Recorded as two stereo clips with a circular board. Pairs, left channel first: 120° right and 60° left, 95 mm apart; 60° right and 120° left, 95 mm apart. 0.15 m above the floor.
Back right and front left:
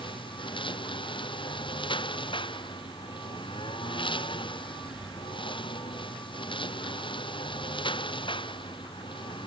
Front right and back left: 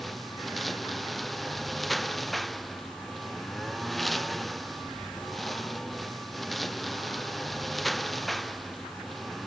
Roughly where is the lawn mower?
Behind right.